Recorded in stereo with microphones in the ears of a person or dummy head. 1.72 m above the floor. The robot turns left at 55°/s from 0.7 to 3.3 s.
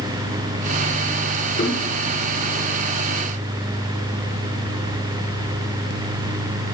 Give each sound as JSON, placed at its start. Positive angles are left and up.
{"t": 1.6, "sound": "knocking", "side_deg": 35, "distance_m": 4.0}